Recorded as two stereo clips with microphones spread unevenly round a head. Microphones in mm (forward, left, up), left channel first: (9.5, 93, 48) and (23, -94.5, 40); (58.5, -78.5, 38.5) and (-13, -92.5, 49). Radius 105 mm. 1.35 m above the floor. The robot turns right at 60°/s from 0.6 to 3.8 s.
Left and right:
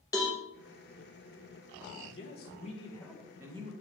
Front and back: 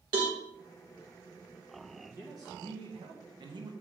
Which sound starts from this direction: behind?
A cowbell, at 0.1 s.